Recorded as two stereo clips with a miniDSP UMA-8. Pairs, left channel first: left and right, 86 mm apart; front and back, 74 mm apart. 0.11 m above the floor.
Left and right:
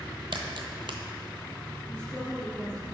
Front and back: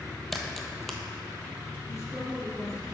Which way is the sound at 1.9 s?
15° left.